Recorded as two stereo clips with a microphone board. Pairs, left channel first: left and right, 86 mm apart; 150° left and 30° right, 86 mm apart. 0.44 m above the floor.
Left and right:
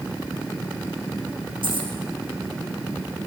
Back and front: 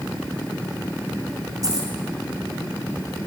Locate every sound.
1.6 s a dropped coin: 80° right, 5 m